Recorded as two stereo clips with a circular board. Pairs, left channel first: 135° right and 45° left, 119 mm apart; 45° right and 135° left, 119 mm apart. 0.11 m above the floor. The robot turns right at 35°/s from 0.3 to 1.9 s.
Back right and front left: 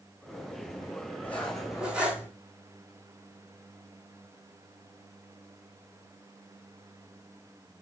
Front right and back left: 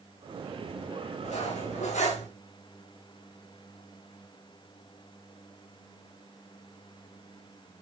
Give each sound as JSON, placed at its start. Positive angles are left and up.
{"t": 1.2, "sound": "cutlery clinking", "azimuth_deg": -60, "distance_m": 4.5}